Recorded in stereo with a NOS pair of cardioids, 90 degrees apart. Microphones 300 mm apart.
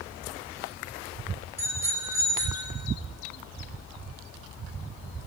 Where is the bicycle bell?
10° right, 8.5 m; by 2.7 s 15° right, 7.5 m.